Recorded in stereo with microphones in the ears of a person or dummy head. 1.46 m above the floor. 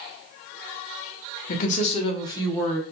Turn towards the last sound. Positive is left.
turn(degrees=10)  # may be behind; listen again after turning